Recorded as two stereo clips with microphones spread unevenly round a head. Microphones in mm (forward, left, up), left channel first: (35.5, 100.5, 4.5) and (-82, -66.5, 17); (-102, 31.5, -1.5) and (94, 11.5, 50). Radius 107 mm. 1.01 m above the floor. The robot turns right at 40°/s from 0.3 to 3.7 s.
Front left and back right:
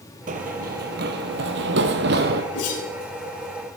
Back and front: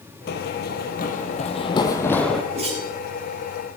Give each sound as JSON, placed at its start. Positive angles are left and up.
{"t": 0.3, "sound": "running footsteps", "azimuth_deg": -145, "distance_m": 1.3}
{"t": 2.5, "sound": "a whoosh", "azimuth_deg": 50, "distance_m": 7.5}